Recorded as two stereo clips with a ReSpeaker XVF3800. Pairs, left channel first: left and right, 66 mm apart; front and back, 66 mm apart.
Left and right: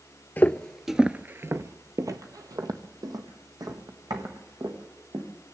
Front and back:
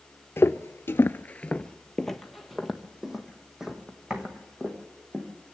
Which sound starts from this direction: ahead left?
Footsteps, at 0.4 s.